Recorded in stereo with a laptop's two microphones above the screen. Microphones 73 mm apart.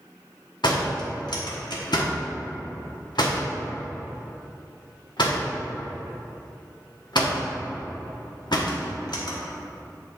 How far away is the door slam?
About 1.2 m.